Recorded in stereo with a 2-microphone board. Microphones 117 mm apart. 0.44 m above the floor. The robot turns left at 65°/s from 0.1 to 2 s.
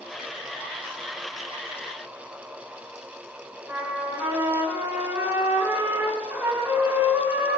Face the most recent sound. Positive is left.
turn(degrees=-20)  # may be behind; listen again after turning